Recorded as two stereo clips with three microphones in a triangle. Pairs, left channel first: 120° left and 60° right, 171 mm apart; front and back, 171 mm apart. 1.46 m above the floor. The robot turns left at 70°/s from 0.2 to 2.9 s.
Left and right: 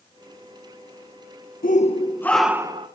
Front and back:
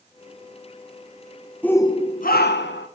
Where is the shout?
85° left, 1.4 m; by 2.9 s 5° right, 1.4 m.